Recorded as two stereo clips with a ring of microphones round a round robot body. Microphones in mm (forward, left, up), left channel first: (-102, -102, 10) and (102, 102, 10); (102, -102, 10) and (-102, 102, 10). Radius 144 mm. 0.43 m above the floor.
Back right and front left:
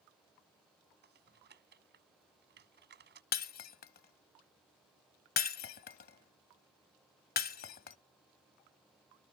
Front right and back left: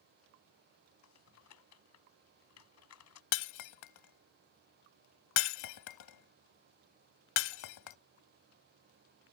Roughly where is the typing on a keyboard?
Ahead.